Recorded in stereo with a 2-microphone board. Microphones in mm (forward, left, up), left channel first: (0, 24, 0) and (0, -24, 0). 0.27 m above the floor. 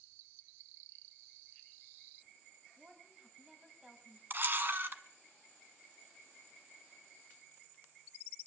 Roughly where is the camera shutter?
Right.